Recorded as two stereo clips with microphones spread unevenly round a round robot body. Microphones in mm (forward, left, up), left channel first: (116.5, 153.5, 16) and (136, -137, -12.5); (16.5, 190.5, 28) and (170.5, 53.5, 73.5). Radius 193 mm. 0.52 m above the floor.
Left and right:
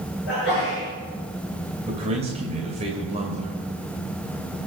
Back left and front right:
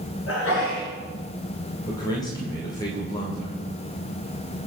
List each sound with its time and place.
0.3 s a sneeze: 155° left, 6 m
1.9 s a man speaking: 155° right, 2.5 m